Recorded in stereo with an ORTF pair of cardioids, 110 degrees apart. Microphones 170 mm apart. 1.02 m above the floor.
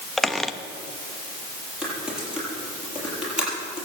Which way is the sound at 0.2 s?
Straight ahead.